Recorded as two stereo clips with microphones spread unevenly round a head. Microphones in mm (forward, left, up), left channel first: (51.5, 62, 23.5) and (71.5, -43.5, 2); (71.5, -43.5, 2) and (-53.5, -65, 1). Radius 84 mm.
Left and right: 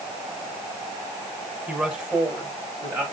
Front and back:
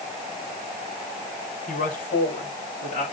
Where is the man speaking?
5° left, 5.5 m; by 3.0 s 15° right, 5 m.